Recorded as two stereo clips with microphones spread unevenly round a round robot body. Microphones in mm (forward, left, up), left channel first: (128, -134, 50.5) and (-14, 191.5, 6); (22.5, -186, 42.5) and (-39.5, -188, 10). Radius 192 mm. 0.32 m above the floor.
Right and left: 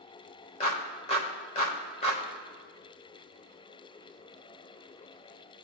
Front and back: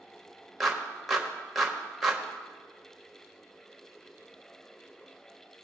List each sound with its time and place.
0.6 s a clap: 140° right, 1.2 m